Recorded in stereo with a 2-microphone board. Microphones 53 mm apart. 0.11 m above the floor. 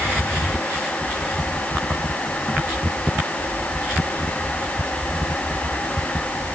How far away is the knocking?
No knocking in this recording.